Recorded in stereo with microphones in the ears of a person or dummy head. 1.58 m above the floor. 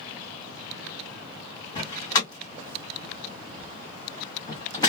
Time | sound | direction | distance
1.8 | a door slam | 25° left (ahead or behind) | 1.3 m